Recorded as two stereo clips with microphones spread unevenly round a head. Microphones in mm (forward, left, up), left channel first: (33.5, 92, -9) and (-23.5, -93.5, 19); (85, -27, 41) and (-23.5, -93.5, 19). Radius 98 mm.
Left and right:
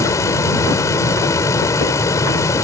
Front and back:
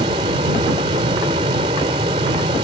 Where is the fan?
150° left.